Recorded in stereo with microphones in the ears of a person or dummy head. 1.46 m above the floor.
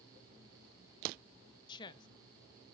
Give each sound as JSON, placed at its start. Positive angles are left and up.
{"t": 1.7, "sound": "a woman speaking", "side_deg": 25, "distance_m": 0.6}